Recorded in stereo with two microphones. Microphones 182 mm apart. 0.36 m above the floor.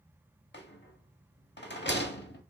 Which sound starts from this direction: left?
A rattle, at 0.5 s.